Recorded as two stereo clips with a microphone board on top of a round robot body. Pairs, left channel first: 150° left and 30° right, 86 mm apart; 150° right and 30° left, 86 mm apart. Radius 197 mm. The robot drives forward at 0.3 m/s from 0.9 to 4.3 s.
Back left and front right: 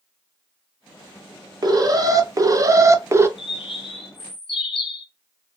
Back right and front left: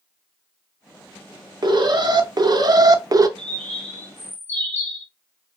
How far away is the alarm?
About 1.0 m.